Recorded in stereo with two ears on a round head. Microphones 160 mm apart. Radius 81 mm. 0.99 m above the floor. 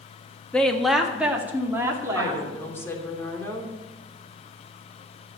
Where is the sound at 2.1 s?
15° left (ahead or behind), 3 m.